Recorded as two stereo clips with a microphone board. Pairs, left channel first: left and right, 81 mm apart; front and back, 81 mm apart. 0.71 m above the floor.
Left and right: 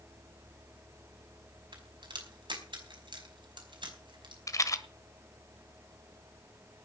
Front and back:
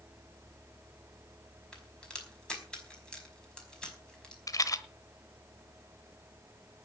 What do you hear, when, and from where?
1.7 s a crack: 80° right, 5 m
4.5 s a rattle: 40° left, 1.2 m